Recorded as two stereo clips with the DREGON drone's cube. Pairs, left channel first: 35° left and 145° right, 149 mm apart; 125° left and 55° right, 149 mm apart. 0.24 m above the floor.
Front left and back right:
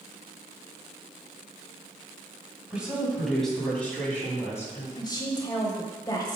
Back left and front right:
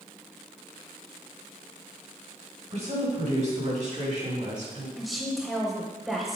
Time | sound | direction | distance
2.7 | a woman speaking | 65° right | 2 m
5.0 | a woman speaking | 35° left | 1.0 m